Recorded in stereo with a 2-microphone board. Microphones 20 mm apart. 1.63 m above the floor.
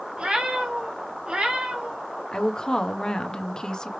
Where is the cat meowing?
60° right (ahead or behind), 2.5 m; by 2.1 s 70° right (ahead or behind), 3.5 m.